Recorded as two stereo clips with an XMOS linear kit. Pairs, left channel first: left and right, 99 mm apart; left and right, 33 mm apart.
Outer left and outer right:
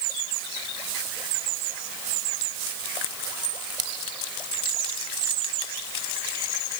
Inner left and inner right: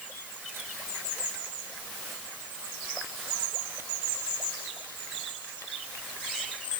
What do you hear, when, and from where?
Only background noise.